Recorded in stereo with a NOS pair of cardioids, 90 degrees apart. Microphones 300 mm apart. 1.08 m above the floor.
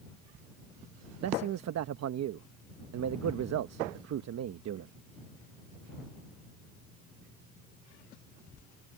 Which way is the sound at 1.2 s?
60° right.